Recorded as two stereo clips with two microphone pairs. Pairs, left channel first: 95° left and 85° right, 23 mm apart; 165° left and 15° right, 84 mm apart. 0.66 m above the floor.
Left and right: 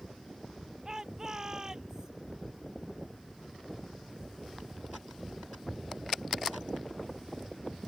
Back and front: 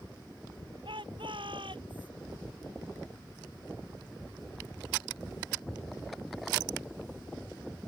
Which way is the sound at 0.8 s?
25° right.